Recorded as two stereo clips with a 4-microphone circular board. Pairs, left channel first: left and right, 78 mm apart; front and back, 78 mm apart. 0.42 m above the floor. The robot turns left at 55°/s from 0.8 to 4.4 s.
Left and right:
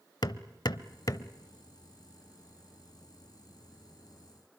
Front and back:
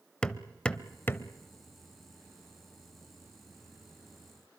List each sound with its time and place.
0.2 s hammering: 75° left, 0.8 m; by 1.3 s 50° left, 0.8 m